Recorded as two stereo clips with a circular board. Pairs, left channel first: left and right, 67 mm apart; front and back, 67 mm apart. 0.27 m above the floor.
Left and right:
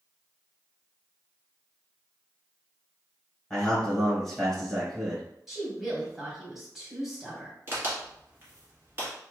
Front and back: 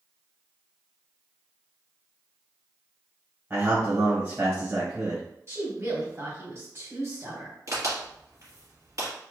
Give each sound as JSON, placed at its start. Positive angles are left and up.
{"t": 3.5, "sound": "a man speaking", "azimuth_deg": 170, "distance_m": 1.5}
{"t": 5.5, "sound": "a woman speaking", "azimuth_deg": -170, "distance_m": 1.6}
{"t": 7.7, "sound": "a crack", "azimuth_deg": -145, "distance_m": 1.6}